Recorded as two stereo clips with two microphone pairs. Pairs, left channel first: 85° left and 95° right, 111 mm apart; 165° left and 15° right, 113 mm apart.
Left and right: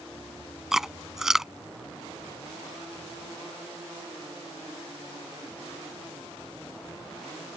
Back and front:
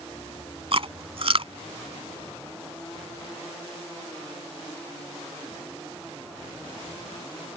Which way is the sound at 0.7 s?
10° right.